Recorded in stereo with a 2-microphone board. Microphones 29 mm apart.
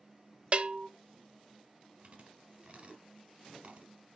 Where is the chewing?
40° right (ahead or behind), 2.5 m.